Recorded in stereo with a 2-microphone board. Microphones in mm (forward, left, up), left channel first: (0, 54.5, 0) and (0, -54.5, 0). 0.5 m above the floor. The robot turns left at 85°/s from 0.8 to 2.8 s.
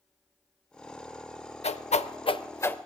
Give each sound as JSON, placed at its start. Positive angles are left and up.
{"t": 1.6, "sound": "a whoosh", "side_deg": 70, "distance_m": 0.5}